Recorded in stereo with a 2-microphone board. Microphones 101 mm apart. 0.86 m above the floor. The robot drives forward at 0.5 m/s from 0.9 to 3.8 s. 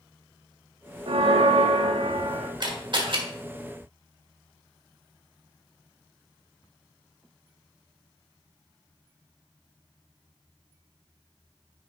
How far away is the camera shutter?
About 1.5 m.